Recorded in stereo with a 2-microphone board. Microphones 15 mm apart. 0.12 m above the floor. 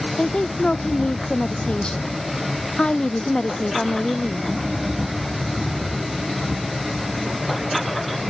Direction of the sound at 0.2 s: 75° left (ahead or behind).